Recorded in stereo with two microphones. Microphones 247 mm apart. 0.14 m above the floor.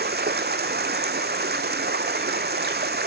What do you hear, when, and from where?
0.0 s running water: 40° right (ahead or behind), 0.8 m